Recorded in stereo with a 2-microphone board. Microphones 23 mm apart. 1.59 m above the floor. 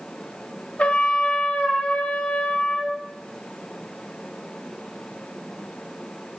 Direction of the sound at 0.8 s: 70° left (ahead or behind).